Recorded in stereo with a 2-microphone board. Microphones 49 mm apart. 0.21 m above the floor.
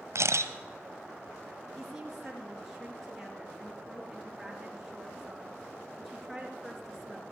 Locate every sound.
0.1 s a camera shutter: 80° right, 1.1 m
1.8 s a woman speaking: centre (ahead or behind), 4 m